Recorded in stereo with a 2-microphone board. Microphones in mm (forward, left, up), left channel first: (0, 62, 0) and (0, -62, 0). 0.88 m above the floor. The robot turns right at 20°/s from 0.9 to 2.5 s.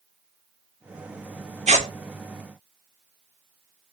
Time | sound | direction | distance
1.7 | tearing paper | 65° right (ahead or behind) | 1.0 m